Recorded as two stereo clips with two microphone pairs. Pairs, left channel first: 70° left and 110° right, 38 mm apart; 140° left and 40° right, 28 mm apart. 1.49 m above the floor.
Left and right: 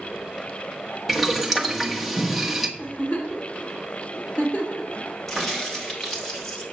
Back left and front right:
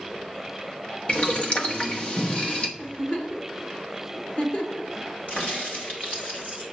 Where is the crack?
155° left, 2 m.